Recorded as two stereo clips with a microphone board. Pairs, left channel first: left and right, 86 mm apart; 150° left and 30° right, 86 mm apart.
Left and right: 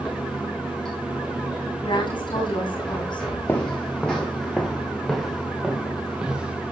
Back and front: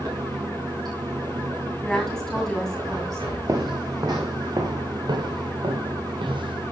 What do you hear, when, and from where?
0.0 s running water: 10° left, 6.5 m
1.8 s a woman speaking: 65° left, 7 m
3.5 s footsteps: 25° left, 2 m; by 6.6 s 10° right, 3 m